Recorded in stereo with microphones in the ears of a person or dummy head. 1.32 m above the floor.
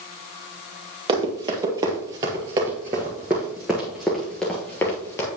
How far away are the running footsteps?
About 2.0 m.